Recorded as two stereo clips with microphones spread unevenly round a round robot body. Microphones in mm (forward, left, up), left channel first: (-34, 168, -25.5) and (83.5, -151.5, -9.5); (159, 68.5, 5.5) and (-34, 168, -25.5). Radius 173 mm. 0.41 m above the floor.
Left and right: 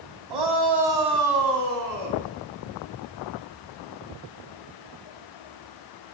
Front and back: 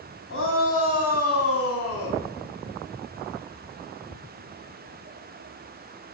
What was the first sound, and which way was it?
A shout, 85° right.